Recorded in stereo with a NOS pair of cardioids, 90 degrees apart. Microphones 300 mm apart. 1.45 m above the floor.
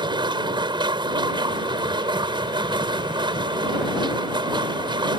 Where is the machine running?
15° right.